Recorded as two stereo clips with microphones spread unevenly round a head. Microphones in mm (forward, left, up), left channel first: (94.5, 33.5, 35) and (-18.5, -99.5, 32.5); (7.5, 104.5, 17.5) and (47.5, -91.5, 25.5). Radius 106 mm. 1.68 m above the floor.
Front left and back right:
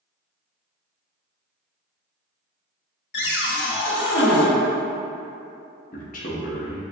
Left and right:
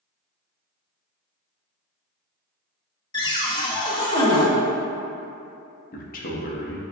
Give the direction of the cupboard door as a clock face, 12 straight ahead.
11 o'clock.